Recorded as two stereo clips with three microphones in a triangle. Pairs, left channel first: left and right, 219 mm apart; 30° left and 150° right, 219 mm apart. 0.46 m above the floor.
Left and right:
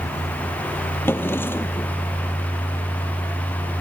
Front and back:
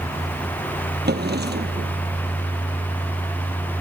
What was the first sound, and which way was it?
A drawer, 170° left.